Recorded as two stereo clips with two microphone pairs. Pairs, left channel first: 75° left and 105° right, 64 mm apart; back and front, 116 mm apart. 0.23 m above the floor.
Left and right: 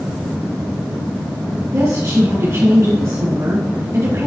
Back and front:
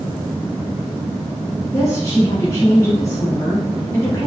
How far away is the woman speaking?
About 3 m.